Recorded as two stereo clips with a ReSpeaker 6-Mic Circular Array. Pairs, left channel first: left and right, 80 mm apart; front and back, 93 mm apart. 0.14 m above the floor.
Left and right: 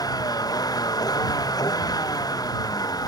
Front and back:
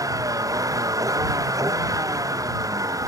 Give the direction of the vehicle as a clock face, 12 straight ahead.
8 o'clock.